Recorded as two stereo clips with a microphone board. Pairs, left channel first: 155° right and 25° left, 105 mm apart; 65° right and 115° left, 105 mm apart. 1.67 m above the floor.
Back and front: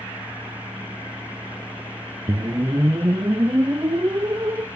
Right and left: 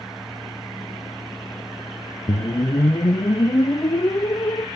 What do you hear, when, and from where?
2.3 s a whoosh: 25° right, 0.6 m